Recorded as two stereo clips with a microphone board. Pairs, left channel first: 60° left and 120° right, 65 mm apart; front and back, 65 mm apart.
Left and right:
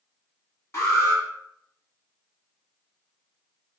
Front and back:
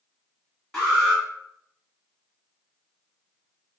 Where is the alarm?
85° left, 1.4 m.